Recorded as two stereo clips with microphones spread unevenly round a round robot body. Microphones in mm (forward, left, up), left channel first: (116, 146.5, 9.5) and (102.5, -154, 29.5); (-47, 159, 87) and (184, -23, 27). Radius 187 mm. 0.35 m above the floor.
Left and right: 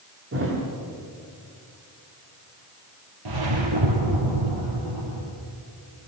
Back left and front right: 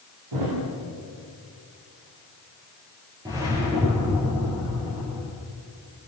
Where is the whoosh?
120° right, 4.5 m.